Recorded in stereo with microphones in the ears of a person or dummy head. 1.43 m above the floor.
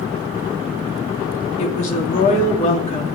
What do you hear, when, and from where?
1.6 s a woman speaking: 45° left (ahead or behind), 3 m